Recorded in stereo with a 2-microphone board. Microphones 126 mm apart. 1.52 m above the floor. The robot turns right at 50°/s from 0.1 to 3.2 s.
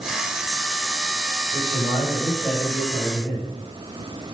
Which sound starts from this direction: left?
A man speaking, at 1.5 s.